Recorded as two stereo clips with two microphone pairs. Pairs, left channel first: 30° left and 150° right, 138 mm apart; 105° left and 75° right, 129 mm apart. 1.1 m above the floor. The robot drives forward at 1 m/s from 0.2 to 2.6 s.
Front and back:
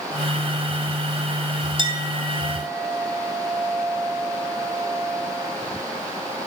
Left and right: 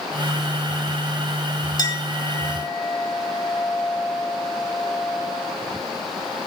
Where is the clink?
160° left, 1.9 m; by 5.5 s 165° left, 2.5 m.